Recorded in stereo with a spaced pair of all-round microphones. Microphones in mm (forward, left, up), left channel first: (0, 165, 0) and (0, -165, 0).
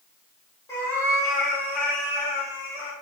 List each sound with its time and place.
0.7 s a cat meowing: 10° left (ahead or behind), 0.8 m; by 2.9 s 10° right (ahead or behind), 1.7 m